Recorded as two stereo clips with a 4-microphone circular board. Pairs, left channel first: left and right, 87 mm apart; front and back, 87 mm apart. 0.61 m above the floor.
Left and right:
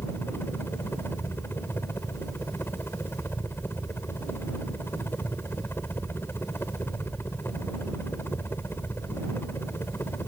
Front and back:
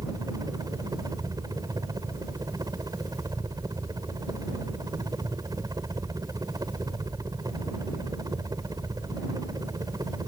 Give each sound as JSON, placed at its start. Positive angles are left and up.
{"t": 0.0, "sound": "a helicopter", "azimuth_deg": 145}